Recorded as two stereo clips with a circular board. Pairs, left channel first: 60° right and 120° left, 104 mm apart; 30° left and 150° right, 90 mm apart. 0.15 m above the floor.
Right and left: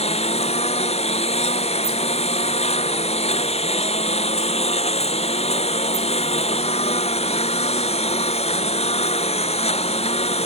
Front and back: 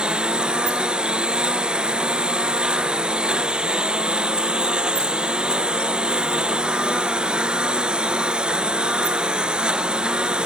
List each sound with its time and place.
0.0 s a lawn mower: 70° right